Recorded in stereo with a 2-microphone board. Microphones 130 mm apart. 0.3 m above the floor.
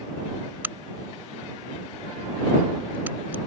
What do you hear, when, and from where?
0.6 s a crack: 15° right (ahead or behind)